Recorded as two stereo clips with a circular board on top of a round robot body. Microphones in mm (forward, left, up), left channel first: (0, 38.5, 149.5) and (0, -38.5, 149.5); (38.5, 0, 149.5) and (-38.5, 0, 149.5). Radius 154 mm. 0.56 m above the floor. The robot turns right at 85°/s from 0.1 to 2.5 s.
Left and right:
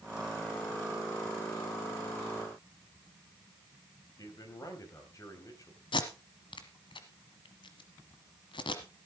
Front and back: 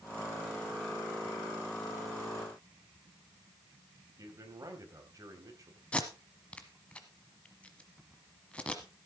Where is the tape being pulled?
75° left, 1.2 m.